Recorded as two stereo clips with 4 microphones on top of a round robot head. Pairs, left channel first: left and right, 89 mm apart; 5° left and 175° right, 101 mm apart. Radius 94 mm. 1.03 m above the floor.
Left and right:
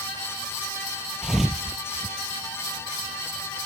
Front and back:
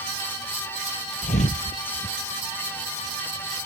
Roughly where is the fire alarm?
No fire alarm in this recording.